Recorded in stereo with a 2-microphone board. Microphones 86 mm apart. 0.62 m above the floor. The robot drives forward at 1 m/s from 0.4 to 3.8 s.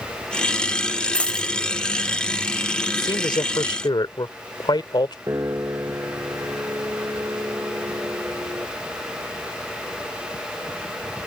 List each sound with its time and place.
1.1 s a dropped coin: 15° left (ahead or behind); by 1.5 s 10° left (ahead or behind)
2.9 s a man speaking: 65° left (ahead or behind)
5.3 s a piano: 35° right (ahead or behind)